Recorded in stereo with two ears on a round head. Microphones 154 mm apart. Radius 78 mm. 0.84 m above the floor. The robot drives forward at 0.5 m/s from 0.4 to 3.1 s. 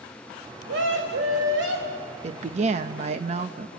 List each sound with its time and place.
0.7 s a scream: 80° right, 5 m; by 2.1 s 75° right (ahead or behind), 5.5 m
2.2 s a woman speaking: 40° right (ahead or behind), 0.9 m; by 3.7 s 35° right (ahead or behind), 0.9 m